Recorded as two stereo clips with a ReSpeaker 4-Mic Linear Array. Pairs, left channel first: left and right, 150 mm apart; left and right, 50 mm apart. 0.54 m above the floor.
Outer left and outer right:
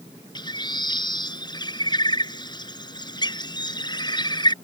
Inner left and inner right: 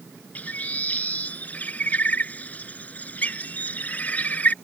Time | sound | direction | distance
0.3 | a bird | 30° left (ahead or behind) | ?